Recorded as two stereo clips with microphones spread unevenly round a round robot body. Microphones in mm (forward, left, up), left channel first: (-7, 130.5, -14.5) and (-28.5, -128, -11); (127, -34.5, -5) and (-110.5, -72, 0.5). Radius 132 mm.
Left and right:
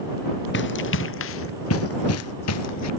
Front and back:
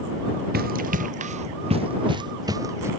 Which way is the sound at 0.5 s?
130° left.